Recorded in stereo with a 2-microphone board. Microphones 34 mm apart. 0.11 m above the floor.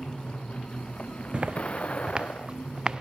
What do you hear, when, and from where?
0.0 s a vehicle: 35° left (ahead or behind); by 3.0 s 45° left (ahead or behind)
1.3 s footsteps: 35° right (ahead or behind); by 3.0 s 25° right (ahead or behind)